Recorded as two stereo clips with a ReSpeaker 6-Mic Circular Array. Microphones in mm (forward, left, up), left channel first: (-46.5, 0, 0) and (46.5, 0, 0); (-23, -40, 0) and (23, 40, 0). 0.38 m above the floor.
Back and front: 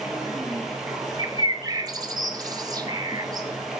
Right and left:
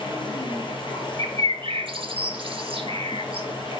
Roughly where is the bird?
Ahead left.